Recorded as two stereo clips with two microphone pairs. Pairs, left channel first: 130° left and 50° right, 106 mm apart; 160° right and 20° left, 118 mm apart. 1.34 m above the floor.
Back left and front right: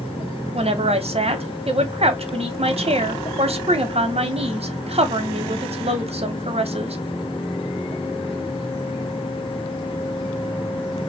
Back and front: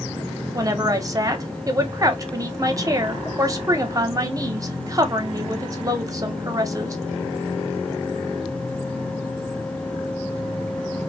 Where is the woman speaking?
40° right, 0.8 m.